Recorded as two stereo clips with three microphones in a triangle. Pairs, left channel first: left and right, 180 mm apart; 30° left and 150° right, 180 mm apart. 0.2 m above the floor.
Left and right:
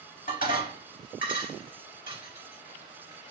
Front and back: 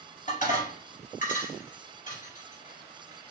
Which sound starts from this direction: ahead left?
Dishes clattering, at 0.3 s.